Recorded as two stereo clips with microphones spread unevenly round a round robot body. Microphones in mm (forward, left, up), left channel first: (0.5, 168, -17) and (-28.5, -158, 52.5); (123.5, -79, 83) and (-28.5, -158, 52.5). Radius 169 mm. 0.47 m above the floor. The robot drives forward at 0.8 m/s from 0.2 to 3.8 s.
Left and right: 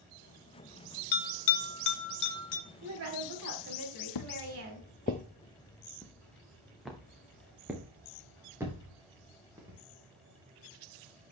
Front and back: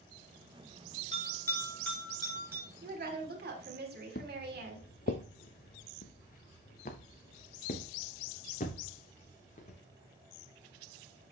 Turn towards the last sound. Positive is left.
turn(degrees=-15)